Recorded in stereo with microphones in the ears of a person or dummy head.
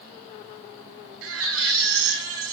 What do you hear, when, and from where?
1.2 s a baby crying: 80° right, 7 m